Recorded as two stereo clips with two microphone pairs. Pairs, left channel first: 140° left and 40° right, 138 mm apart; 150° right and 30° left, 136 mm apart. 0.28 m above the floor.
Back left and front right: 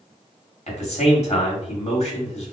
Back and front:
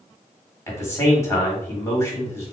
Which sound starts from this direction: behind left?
A man speaking, at 0.7 s.